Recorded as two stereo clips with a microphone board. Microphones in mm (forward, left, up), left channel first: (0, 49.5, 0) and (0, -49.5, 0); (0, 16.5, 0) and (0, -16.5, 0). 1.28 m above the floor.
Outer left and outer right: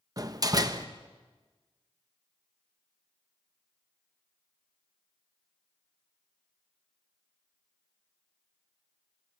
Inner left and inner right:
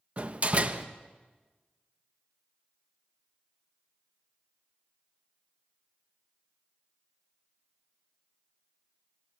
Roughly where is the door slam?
Right.